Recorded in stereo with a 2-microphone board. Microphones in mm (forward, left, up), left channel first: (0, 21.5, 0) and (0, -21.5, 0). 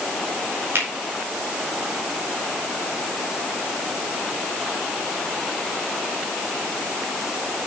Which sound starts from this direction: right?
A finger snap, at 0.8 s.